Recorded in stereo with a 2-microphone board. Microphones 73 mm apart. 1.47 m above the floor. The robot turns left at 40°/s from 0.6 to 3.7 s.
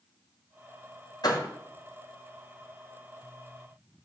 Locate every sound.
1.2 s a door slam: 65° left (ahead or behind), 3 m; by 1.5 s 75° left (ahead or behind), 3 m